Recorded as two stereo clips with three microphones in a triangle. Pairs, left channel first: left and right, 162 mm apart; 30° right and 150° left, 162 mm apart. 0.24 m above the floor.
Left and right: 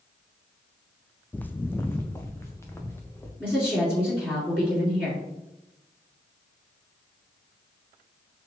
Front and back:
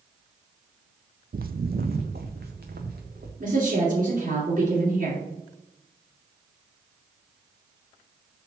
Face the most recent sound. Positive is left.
turn(degrees=170)